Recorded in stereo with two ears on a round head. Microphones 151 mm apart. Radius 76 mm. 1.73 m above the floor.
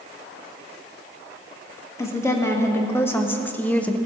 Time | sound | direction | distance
2.0 | a woman speaking | 15° left (ahead or behind) | 1.9 m